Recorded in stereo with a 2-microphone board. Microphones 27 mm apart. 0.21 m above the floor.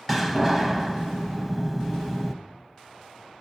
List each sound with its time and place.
0.1 s a door slam: 5° left (ahead or behind), 0.9 m